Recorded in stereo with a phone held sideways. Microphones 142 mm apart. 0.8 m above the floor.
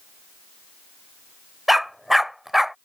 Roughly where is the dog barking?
Centre.